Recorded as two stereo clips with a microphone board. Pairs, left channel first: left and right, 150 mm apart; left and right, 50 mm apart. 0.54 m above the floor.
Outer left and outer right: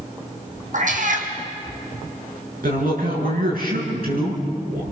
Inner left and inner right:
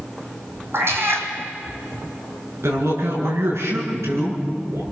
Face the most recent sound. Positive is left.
turn(degrees=-80)